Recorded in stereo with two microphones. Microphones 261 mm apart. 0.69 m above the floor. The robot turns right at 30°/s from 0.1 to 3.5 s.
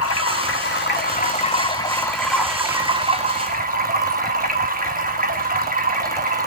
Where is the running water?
115° left, 0.9 m; by 6.5 s 145° right, 0.9 m.